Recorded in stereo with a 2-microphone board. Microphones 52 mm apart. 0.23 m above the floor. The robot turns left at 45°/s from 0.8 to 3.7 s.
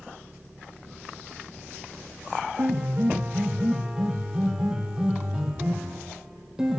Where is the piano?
115° right, 4 m; by 6.8 s 165° right, 4 m.